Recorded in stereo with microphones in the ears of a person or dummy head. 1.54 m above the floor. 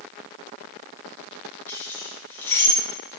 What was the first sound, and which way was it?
Keys jangling, 10° left (ahead or behind).